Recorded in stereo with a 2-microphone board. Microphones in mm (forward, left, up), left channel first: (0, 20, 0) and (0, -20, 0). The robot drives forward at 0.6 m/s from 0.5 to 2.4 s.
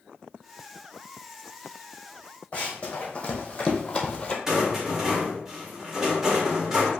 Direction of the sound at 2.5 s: 30° left (ahead or behind).